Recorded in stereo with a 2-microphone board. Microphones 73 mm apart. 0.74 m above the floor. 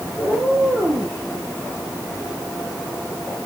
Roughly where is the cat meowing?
Right.